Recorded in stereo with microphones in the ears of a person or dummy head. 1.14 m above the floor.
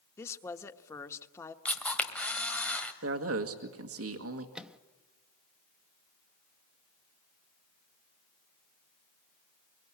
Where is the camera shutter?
10° left (ahead or behind), 1.8 m.